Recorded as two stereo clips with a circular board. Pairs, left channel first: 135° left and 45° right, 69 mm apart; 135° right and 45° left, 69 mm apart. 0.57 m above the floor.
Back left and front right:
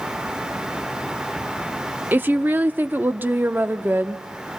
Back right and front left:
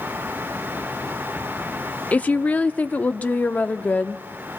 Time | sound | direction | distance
2.1 | a woman speaking | 85° right | 0.7 m